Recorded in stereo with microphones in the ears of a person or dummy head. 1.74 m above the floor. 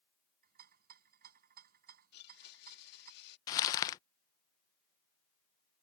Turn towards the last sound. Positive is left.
turn(degrees=15)  # may be behind; listen again after turning